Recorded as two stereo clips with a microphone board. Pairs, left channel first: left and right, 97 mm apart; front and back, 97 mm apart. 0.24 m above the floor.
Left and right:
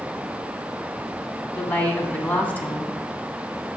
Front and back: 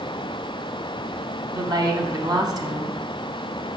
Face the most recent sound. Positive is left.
turn(degrees=160)